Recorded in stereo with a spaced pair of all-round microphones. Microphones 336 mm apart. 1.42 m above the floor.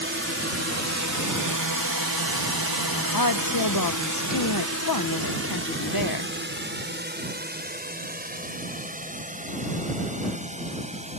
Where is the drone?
35° right (ahead or behind); by 11.2 s 20° right (ahead or behind).